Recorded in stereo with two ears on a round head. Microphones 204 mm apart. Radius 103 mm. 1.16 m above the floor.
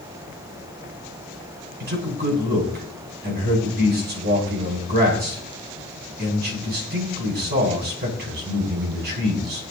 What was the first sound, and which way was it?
A man speaking, 50° right (ahead or behind).